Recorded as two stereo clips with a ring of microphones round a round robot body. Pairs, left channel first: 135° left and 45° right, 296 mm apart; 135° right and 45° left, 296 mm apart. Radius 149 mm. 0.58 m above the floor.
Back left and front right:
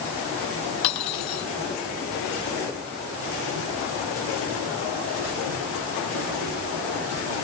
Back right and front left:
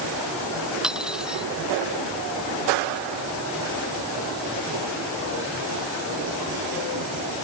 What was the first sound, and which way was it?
Cutlery clinking, 130° left.